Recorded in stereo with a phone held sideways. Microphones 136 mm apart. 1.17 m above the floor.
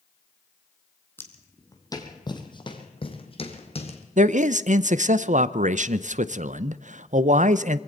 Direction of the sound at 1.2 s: 15° left (ahead or behind).